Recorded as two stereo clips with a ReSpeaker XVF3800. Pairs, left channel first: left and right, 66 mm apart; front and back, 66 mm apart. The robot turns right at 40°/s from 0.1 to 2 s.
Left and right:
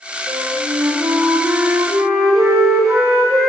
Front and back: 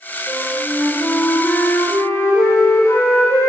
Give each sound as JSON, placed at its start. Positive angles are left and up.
{"t": 0.3, "sound": "a flute", "azimuth_deg": -115, "distance_m": 5.5}